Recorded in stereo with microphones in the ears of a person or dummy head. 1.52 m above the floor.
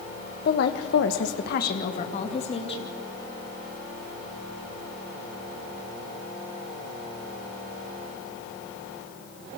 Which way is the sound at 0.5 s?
55° left (ahead or behind).